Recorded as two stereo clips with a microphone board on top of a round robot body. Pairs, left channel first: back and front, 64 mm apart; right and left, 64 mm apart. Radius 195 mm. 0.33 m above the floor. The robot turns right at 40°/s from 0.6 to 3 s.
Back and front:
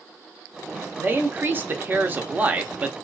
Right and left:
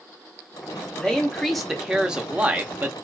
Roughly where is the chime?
No chime in this recording.